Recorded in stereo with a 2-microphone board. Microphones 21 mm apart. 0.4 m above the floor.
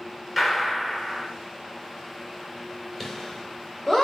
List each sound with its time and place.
0.4 s a gunshot: 5° right (ahead or behind), 0.9 m
3.0 s laughter: 10° left (ahead or behind), 1.5 m